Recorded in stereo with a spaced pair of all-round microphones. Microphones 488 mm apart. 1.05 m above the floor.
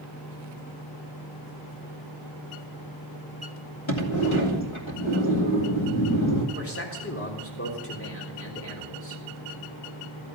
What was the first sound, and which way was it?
A sliding door, 75° left (ahead or behind).